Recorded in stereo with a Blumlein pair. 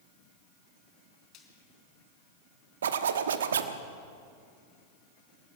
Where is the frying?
35° left, 4.5 m.